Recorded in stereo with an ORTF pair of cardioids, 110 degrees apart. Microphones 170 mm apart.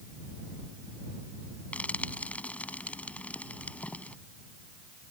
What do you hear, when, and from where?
1.7 s frying: 10° left